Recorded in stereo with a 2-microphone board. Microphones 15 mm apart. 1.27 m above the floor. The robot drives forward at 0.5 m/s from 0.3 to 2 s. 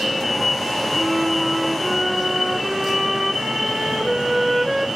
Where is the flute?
35° right (ahead or behind), 1.2 m; by 4.9 s 25° right (ahead or behind), 1.6 m.